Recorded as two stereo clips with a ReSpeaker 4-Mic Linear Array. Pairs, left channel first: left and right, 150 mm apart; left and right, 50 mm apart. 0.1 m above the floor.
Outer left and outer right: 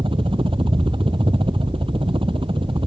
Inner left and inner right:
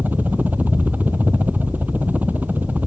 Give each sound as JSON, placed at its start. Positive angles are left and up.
{"t": 0.0, "sound": "a helicopter", "side_deg": -35}